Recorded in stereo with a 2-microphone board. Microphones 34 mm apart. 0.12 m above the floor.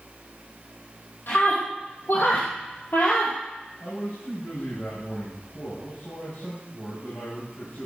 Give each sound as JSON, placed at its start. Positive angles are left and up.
{"t": 1.3, "sound": "a scream", "side_deg": 70, "distance_m": 3.5}
{"t": 3.8, "sound": "a man speaking", "side_deg": 70, "distance_m": 9.0}